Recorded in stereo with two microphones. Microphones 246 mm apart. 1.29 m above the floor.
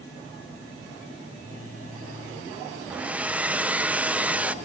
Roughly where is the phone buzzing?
Right.